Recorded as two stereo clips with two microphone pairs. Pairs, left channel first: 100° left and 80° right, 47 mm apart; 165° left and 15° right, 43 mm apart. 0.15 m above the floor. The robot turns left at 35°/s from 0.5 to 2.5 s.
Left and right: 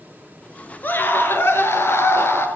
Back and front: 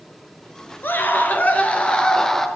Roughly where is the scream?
Behind left.